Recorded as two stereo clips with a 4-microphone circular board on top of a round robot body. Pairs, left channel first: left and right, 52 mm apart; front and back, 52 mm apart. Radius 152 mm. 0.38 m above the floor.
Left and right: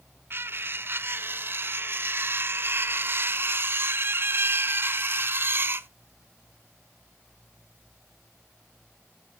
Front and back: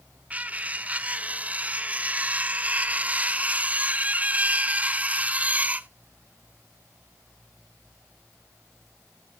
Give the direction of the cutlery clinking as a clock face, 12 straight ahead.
4 o'clock.